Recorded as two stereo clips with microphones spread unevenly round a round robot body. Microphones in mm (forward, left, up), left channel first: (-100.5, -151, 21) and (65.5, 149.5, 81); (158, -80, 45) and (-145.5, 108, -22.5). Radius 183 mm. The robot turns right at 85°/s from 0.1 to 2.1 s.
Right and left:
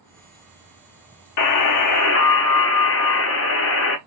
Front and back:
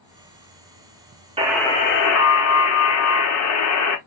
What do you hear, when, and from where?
1.4 s a buzzer: 145° right, 0.7 m; by 4.0 s 80° right, 0.7 m